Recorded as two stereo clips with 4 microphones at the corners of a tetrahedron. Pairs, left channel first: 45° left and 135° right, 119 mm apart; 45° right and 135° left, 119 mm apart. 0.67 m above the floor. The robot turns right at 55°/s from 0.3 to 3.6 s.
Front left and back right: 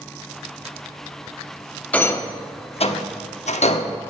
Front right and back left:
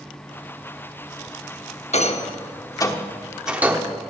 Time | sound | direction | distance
1.9 | a rattle | 35° right | 0.8 m